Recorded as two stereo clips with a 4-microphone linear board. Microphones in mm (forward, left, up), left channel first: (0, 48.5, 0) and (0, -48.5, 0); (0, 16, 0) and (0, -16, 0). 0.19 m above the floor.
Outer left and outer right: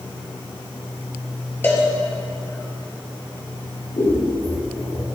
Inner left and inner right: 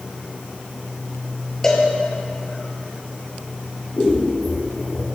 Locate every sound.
1.6 s a cowbell: 20° left (ahead or behind), 1.0 m
4.0 s scissors: 50° left (ahead or behind), 2.5 m